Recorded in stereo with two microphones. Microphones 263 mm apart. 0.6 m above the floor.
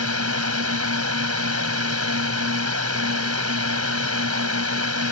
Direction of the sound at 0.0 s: 65° right (ahead or behind).